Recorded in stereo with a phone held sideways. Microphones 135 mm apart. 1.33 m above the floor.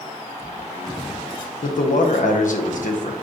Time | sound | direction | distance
1.6 | a man speaking | 70° left (ahead or behind) | 1.0 m